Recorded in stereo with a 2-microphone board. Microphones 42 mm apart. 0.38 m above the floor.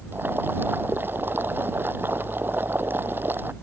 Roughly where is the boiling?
Right.